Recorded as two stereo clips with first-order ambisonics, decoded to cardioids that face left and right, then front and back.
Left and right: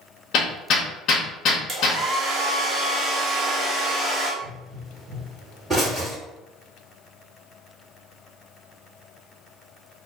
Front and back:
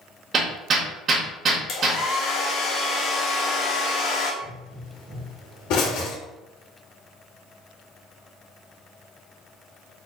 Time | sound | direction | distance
0.3 | hammering | 130° left | 0.9 m
1.7 | a hair dryer | 35° right | 1.0 m
4.4 | a pop | 5° right | 1.8 m